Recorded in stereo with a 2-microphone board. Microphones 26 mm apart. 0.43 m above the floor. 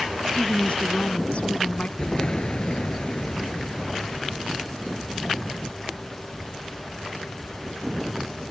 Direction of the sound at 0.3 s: 55° left (ahead or behind).